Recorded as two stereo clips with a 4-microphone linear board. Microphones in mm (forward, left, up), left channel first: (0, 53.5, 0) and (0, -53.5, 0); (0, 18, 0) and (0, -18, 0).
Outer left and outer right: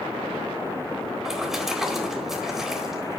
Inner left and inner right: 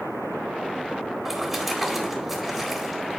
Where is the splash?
5° right (ahead or behind), 2.0 m.